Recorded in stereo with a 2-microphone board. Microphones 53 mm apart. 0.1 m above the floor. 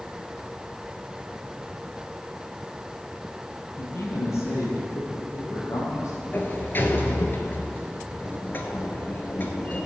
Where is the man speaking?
50° left (ahead or behind), 2.5 m; by 6.1 s 70° left (ahead or behind), 4.5 m.